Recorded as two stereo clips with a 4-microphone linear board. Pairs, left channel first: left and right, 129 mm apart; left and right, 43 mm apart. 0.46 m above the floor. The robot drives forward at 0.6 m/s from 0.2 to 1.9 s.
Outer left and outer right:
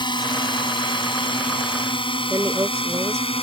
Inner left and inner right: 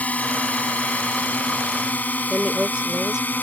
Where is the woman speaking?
20° right (ahead or behind).